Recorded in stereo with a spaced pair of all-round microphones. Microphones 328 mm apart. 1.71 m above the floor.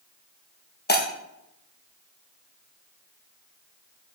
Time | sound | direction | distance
0.9 | breaking glass | 30° left (ahead or behind) | 1.0 m